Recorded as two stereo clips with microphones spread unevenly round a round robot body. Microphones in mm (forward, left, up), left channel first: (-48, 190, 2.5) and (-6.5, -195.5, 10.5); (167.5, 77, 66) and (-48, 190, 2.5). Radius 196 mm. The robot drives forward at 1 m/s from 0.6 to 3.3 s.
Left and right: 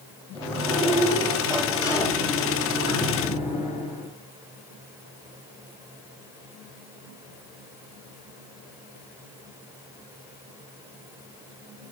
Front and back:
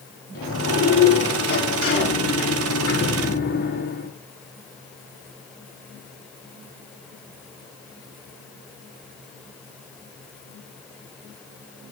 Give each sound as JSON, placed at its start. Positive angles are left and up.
{"t": 0.3, "sound": "a sliding door", "azimuth_deg": 10, "distance_m": 7.0}